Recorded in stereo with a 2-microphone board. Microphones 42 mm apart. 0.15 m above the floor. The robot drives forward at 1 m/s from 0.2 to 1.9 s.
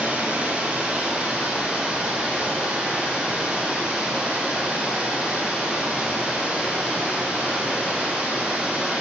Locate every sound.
0.0 s running water: 30° right (ahead or behind), 3 m; by 9.0 s 20° right (ahead or behind), 4.5 m